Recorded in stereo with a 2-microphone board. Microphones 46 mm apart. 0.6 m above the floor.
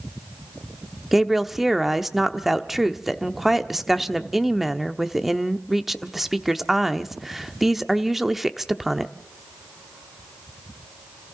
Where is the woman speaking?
5° right (ahead or behind), 0.9 m.